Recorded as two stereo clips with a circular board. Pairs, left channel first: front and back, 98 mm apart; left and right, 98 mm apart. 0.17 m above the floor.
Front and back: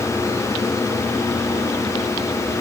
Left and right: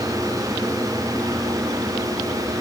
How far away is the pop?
I don't hear a pop.